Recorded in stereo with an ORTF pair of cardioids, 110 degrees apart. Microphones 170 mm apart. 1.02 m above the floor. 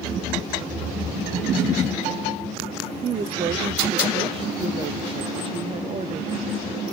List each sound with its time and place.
3.0 s a woman speaking: 35° right, 0.6 m